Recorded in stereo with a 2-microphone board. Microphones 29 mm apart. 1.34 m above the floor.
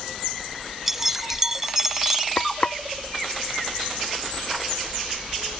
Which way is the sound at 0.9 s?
15° right (ahead or behind).